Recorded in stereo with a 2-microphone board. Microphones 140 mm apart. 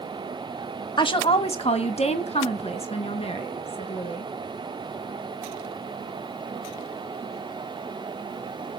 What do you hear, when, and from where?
1.0 s a woman speaking: 35° left (ahead or behind), 1.3 m; by 4.3 s 40° left (ahead or behind), 5 m